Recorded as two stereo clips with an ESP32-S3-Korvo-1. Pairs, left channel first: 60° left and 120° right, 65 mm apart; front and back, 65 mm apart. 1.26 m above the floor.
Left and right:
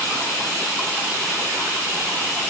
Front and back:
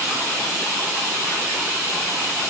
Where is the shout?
No shout in this recording.